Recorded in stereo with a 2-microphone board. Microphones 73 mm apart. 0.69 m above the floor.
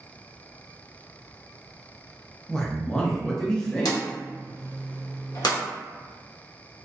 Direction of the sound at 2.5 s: 10° left (ahead or behind).